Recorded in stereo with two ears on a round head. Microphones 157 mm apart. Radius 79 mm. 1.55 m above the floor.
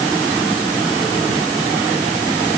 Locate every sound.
Only background noise.